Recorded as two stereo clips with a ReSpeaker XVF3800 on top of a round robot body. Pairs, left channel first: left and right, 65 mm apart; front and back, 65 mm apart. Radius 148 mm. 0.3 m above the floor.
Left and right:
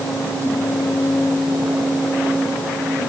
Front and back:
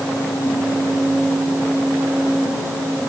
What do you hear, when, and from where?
Only background noise.